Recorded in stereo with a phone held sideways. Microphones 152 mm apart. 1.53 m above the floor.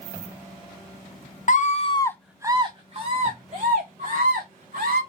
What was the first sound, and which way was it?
A scream, 55° left (ahead or behind).